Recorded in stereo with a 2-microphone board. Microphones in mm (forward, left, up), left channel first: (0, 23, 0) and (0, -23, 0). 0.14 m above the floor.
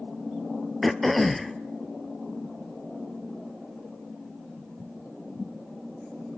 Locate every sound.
0.8 s throat clearing: centre (ahead or behind), 0.7 m